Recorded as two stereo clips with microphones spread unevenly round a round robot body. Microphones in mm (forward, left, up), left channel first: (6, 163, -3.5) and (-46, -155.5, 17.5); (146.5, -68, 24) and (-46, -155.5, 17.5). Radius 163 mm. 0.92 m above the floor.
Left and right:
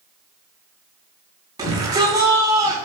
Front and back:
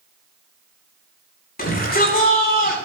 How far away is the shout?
About 9.5 m.